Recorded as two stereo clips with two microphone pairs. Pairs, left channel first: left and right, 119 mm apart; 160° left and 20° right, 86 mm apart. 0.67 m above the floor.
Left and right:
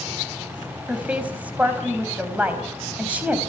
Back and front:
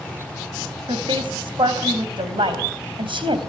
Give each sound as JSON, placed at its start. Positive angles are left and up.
{"t": 0.9, "sound": "a woman speaking", "azimuth_deg": -15, "distance_m": 3.5}